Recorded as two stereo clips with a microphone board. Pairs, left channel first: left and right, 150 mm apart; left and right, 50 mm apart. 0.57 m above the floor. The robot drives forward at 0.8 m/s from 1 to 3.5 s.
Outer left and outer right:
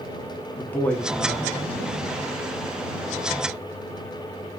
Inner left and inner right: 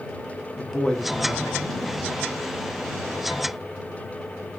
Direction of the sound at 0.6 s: 10° left (ahead or behind).